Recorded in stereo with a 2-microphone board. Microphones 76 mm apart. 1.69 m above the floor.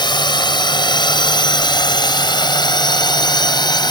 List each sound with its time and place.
0.0 s a drone: 85° left; by 3.9 s 75° left (ahead or behind)